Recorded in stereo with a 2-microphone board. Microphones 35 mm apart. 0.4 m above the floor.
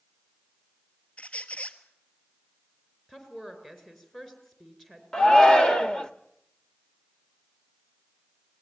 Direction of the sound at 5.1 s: 20° left (ahead or behind).